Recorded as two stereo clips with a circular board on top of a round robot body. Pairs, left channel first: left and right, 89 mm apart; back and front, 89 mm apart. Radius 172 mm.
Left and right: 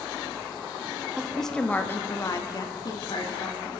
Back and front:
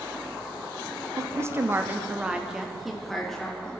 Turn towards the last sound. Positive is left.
turn(degrees=100)